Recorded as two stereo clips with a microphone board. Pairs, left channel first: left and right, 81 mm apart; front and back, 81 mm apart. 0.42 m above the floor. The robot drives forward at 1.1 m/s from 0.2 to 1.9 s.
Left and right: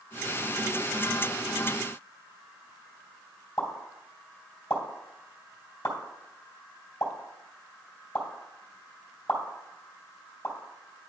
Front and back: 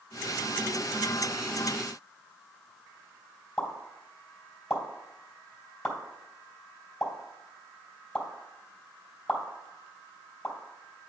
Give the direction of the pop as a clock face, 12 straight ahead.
9 o'clock.